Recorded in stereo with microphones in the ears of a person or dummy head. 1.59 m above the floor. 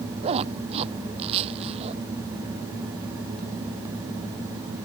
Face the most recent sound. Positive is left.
turn(degrees=-30)  # may be behind; listen again after turning